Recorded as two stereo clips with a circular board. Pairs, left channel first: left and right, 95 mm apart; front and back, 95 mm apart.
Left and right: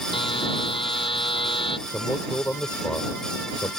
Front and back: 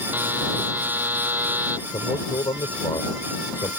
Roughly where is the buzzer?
Left.